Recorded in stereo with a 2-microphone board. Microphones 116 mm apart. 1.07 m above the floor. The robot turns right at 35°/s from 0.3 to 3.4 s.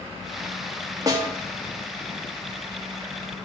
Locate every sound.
1.1 s a snare drum: 30° right (ahead or behind), 1.4 m; by 1.3 s 20° right (ahead or behind), 1.4 m